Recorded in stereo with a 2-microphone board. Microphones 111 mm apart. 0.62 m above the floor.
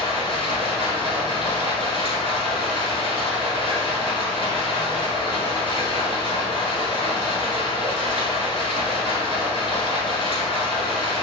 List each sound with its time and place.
0.0 s running water: 55° left (ahead or behind), 1.4 m